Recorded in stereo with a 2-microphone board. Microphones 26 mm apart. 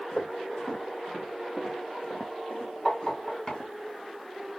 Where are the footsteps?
65° left (ahead or behind), 3.5 m; by 3.7 s 30° left (ahead or behind), 2 m.